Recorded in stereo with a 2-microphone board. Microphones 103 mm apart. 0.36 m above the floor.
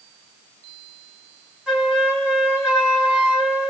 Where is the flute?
10° right (ahead or behind), 3 m.